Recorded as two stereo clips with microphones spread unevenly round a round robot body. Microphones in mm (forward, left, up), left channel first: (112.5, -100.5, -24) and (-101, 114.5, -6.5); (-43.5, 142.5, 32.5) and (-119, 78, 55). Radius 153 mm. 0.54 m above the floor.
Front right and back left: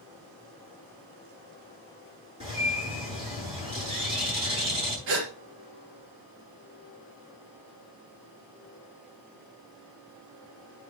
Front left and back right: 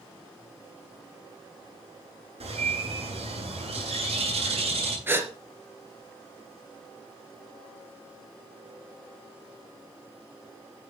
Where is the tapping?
I don't hear tapping.